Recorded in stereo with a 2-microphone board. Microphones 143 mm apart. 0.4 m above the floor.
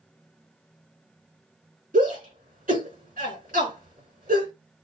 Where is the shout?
75° right (ahead or behind), 4.5 m.